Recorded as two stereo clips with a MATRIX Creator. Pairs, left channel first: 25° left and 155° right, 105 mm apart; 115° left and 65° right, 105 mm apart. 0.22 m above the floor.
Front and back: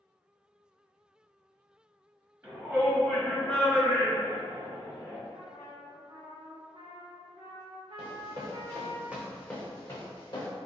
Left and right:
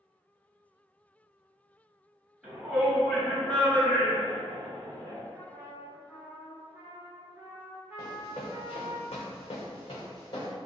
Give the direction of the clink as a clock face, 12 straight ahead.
No clink in this recording.